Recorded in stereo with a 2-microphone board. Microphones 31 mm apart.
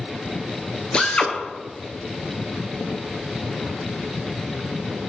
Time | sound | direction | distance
0.9 | a drill | 35° left (ahead or behind) | 1.4 m